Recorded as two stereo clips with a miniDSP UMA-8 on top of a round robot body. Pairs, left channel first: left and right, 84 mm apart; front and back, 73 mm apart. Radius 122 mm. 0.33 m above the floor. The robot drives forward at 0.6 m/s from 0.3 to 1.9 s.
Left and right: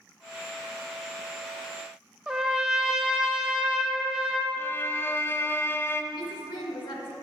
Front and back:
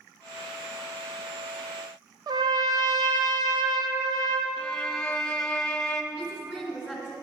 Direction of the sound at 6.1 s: 105° left.